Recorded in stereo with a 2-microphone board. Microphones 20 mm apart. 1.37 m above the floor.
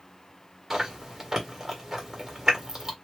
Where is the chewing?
25° right (ahead or behind), 1.5 m.